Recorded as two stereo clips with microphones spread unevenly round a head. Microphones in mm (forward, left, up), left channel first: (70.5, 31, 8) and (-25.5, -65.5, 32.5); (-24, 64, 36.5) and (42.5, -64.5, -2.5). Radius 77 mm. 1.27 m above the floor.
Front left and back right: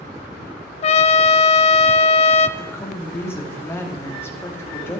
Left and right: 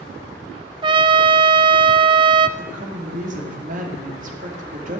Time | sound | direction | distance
0.8 | a trumpet | 5° left | 0.6 m
2.6 | a woman speaking | 30° right | 2.5 m